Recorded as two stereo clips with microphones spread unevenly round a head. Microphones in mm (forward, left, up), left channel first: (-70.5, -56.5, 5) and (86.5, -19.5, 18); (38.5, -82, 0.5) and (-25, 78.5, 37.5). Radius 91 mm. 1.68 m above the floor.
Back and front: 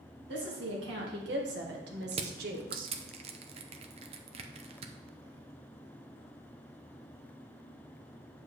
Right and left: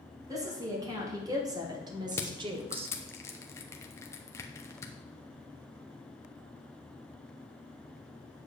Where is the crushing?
15° left, 0.7 m.